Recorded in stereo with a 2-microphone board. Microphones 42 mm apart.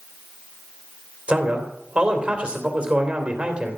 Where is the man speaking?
25° right (ahead or behind), 3 m.